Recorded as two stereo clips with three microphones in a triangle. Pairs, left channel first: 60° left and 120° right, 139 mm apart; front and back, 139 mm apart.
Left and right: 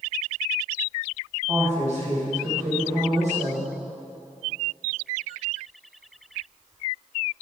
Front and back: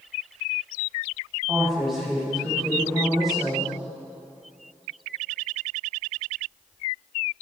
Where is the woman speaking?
90° right, 3.5 m.